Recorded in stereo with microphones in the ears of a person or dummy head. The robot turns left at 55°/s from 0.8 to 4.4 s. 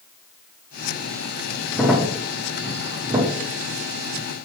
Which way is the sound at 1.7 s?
Centre (ahead or behind).